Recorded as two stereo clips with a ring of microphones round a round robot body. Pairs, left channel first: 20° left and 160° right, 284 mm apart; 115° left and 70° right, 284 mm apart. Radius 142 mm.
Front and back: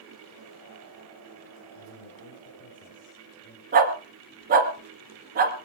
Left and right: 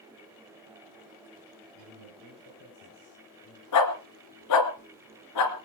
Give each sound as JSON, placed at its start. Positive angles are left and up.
{"t": 1.8, "sound": "a man speaking", "azimuth_deg": 75, "distance_m": 7.5}
{"t": 3.7, "sound": "a dog barking", "azimuth_deg": 140, "distance_m": 2.5}